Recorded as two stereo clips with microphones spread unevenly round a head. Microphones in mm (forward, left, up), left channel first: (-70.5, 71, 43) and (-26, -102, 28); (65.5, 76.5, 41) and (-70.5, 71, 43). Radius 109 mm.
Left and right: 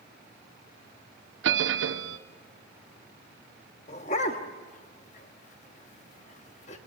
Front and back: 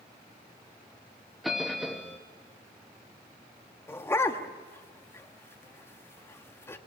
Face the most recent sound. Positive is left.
turn(degrees=70)